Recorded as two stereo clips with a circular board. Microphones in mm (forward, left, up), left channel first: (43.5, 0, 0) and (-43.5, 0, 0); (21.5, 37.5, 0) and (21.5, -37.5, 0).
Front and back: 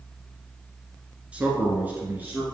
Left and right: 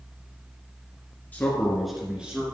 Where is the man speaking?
125° left, 1.7 m; by 2.4 s 135° right, 1.8 m.